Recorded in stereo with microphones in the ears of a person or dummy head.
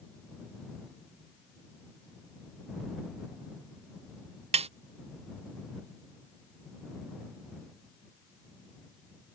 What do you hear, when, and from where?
4.5 s a snare drum: 30° right (ahead or behind)